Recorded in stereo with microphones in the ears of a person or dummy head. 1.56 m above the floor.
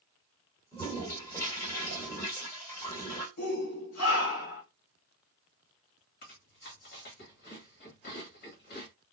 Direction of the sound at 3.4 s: 85° left.